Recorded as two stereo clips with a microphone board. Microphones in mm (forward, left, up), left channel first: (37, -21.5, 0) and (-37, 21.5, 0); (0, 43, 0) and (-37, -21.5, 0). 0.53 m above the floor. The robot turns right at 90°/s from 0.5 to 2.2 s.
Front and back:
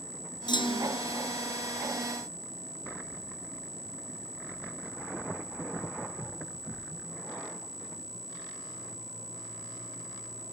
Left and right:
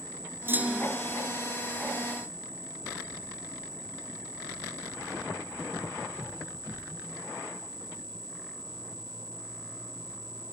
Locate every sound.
0.5 s a clunk: 60° right; by 1.0 s 15° right